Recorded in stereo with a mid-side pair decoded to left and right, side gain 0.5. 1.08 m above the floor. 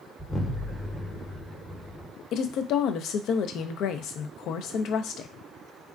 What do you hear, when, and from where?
0.2 s an explosion: 20° left, 0.9 m
2.3 s a woman speaking: 65° left, 0.5 m